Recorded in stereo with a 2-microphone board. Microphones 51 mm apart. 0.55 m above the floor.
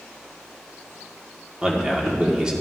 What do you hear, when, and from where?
1.6 s a man speaking: 15° right (ahead or behind), 1.2 m